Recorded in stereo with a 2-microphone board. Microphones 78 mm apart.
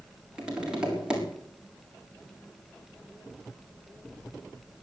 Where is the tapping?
10° right (ahead or behind), 5.5 m.